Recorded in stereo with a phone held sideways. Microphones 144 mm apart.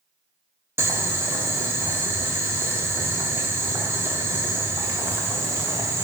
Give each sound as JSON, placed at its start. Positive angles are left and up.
{"t": 0.8, "sound": "boiling", "side_deg": -20, "distance_m": 0.8}